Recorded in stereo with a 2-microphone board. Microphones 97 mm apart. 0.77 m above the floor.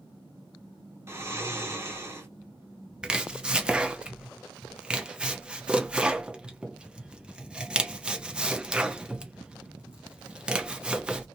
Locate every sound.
1.1 s snoring: 25° right (ahead or behind), 1.1 m
3.0 s chopping: 10° right (ahead or behind), 0.8 m